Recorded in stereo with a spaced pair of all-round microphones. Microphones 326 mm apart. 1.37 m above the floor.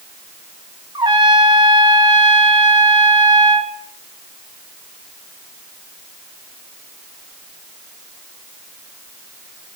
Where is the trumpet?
15° right (ahead or behind), 1.0 m.